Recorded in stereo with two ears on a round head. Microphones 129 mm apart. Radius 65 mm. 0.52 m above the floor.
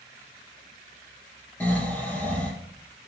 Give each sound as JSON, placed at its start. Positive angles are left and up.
{"t": 1.6, "sound": "snoring", "side_deg": 10, "distance_m": 4.0}